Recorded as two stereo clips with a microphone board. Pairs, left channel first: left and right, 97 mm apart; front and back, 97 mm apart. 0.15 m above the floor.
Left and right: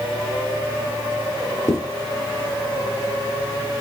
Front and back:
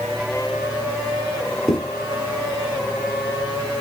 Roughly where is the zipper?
Left.